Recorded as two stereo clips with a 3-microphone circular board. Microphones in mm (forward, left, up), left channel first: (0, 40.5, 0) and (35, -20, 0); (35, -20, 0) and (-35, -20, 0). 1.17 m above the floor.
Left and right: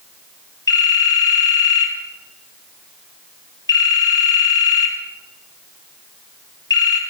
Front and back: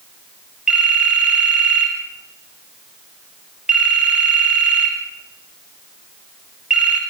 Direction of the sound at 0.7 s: 105° left.